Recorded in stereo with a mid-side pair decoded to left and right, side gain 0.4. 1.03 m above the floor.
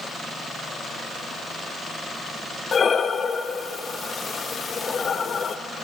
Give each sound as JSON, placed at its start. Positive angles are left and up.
{"t": 2.7, "sound": "breathing", "azimuth_deg": 50, "distance_m": 0.6}